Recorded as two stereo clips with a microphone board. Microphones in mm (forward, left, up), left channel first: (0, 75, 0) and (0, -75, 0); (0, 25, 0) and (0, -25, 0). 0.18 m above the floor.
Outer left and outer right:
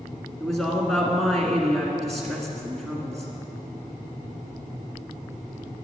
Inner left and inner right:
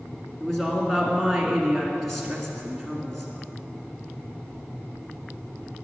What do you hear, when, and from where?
0.4 s a woman speaking: centre (ahead or behind), 1.7 m